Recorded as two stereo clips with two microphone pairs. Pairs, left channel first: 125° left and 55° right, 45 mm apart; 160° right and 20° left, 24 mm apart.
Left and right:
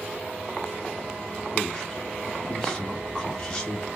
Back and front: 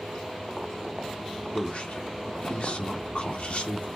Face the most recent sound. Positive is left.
turn(degrees=-160)